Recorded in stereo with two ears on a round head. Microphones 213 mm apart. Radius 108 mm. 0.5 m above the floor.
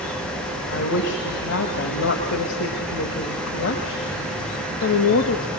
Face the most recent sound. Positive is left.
turn(degrees=55)  # may be behind; listen again after turning